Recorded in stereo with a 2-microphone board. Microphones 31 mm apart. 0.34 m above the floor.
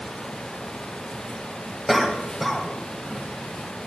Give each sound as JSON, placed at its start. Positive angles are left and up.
{"t": 1.9, "sound": "a cough", "side_deg": 0, "distance_m": 2.5}